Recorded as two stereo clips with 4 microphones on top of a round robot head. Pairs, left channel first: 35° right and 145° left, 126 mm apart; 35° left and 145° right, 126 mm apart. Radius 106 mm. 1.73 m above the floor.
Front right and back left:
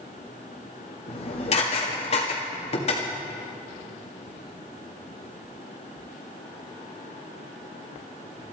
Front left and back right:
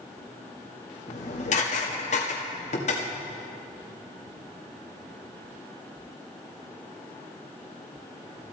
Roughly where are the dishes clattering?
Ahead.